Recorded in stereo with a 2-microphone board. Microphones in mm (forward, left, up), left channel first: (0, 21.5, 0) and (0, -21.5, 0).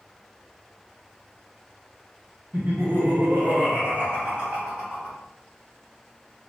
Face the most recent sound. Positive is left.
turn(degrees=-20)  # may be behind; listen again after turning